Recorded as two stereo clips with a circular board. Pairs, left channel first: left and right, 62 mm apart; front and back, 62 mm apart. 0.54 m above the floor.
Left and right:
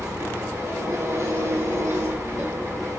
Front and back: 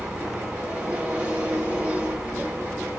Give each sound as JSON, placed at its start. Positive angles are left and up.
{"t": 0.0, "sound": "an engine running", "azimuth_deg": -110, "distance_m": 1.5}